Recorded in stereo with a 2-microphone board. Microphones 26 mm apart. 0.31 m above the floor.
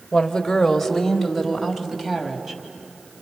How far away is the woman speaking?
About 1.5 m.